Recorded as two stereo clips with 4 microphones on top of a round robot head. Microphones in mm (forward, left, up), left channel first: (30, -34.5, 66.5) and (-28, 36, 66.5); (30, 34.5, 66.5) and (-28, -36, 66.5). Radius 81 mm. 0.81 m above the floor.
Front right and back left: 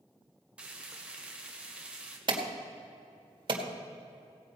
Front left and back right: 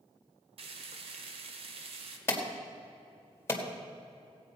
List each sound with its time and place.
0.6 s frying: 150° right, 1.2 m
2.3 s an alarm: 110° left, 1.9 m